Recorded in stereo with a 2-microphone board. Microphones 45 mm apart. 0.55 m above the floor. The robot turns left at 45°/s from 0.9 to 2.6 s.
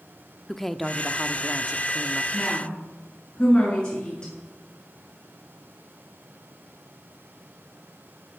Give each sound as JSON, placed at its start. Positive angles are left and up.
{"t": 0.5, "sound": "a woman speaking", "azimuth_deg": 10, "distance_m": 0.7}
{"t": 2.3, "sound": "a woman speaking", "side_deg": 10, "distance_m": 8.0}